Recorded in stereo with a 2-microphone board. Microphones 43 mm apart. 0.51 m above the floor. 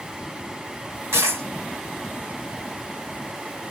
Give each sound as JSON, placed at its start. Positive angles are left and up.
{"t": 1.1, "sound": "a dropped coin", "side_deg": -85, "distance_m": 1.2}